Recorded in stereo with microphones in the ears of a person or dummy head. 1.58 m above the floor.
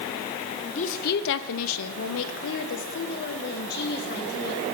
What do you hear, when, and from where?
0.7 s a woman speaking: 35° left (ahead or behind), 1.0 m; by 4.6 s 45° left (ahead or behind), 3.5 m